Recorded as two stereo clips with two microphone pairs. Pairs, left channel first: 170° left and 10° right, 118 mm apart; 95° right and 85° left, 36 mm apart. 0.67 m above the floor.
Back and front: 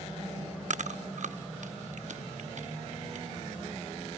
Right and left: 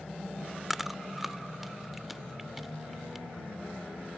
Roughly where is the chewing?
Ahead.